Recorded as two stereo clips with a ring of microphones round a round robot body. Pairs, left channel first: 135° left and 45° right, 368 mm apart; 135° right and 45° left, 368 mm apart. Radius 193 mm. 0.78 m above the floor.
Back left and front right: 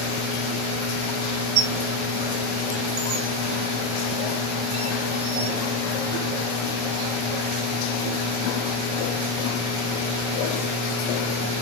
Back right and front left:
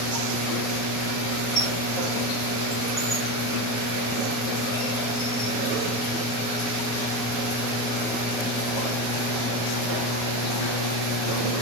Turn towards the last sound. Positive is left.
turn(degrees=-75)